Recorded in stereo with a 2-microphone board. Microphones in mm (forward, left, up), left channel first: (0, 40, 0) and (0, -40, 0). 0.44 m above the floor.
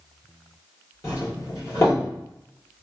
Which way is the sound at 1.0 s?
40° left (ahead or behind).